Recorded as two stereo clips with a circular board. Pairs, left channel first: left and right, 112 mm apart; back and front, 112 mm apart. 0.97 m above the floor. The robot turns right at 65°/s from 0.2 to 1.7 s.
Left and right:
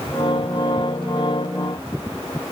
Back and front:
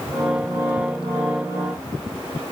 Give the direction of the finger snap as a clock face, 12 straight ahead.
No finger snap in this recording.